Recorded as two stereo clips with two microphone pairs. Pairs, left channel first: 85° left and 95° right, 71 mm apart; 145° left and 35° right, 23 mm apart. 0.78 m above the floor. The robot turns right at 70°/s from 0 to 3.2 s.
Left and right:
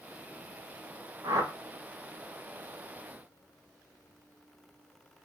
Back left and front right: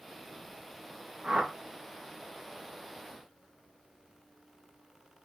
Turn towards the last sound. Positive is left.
turn(degrees=50)